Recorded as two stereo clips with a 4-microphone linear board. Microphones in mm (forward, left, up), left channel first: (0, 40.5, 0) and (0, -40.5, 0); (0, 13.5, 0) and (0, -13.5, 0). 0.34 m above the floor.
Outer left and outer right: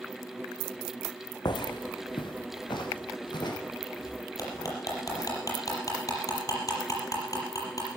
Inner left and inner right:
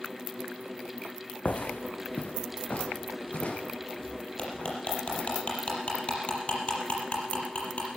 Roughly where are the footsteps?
Left.